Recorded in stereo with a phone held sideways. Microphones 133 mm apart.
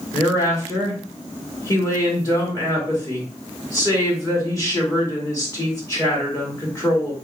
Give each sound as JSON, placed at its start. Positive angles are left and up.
{"t": 0.1, "sound": "a woman speaking", "side_deg": 25, "distance_m": 2.0}